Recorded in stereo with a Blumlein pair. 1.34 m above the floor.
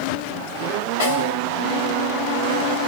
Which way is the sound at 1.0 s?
65° left.